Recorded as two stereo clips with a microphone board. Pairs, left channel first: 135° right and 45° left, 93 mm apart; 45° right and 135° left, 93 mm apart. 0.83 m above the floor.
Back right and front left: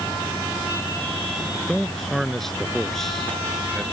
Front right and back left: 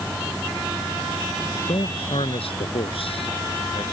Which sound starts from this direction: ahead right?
A man speaking, at 1.5 s.